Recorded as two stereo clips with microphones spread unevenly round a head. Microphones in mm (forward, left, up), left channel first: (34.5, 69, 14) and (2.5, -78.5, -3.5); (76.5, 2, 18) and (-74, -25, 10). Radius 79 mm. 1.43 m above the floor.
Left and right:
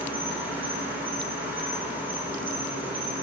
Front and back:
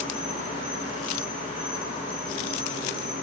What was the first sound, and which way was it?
An insect, 20° right.